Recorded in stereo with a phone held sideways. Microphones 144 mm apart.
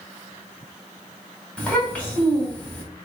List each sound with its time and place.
1.6 s a child speaking: 10° left (ahead or behind), 2 m